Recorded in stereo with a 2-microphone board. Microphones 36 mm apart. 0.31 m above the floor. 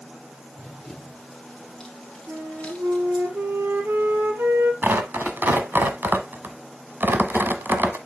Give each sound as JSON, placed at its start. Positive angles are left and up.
{"t": 0.6, "sound": "running footsteps", "side_deg": 5, "distance_m": 2.5}
{"t": 2.3, "sound": "a flute", "side_deg": -65, "distance_m": 2.0}
{"t": 4.8, "sound": "tearing paper", "side_deg": -60, "distance_m": 1.1}